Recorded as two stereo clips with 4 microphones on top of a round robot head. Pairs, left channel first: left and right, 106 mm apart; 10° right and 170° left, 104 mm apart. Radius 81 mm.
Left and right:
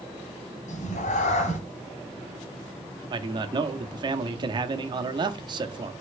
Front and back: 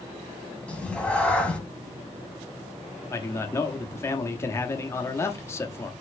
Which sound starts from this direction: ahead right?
A man speaking, at 3.1 s.